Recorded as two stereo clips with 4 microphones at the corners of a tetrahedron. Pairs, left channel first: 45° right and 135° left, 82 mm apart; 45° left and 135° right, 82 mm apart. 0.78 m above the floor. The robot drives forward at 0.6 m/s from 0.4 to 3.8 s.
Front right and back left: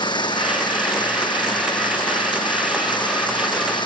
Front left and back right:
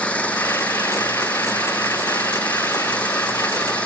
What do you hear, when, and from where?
0.0 s an engine running: 30° right